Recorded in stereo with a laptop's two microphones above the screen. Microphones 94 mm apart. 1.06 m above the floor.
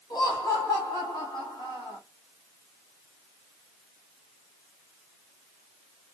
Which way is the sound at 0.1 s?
50° left (ahead or behind).